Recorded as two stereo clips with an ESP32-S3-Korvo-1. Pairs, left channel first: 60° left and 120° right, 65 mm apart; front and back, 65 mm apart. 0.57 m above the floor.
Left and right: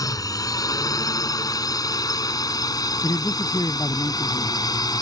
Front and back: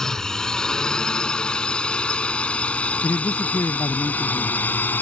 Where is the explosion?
I don't hear an explosion.